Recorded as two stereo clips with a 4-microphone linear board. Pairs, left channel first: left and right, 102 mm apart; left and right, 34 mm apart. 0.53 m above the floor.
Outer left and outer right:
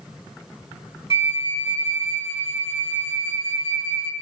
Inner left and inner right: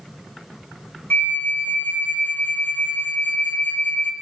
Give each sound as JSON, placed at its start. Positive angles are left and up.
{"t": 1.1, "sound": "a flute", "side_deg": 65, "distance_m": 0.8}